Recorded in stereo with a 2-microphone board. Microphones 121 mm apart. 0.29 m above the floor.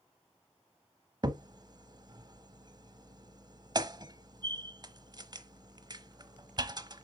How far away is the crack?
About 0.8 m.